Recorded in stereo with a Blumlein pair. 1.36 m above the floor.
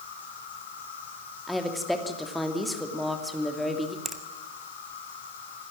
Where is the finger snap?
10° right, 1.7 m.